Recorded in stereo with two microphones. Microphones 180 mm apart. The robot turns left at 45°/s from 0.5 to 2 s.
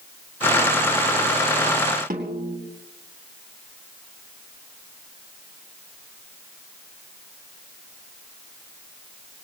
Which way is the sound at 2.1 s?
50° right (ahead or behind).